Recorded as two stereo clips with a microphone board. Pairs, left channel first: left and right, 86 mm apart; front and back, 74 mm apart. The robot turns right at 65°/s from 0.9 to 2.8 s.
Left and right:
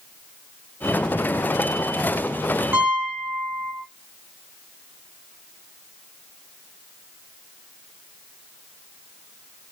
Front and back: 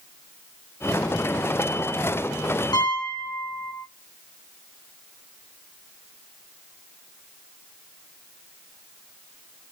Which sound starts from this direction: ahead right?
A piano, at 2.7 s.